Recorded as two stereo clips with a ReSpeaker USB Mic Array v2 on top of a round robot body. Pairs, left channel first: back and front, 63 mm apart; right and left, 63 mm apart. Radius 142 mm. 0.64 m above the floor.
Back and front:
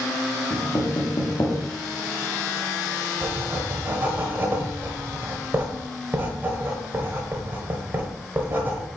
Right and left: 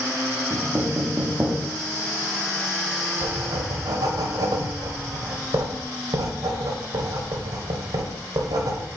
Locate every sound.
0.5 s knocking: 150° left, 1.5 m
3.2 s writing: 65° left, 0.9 m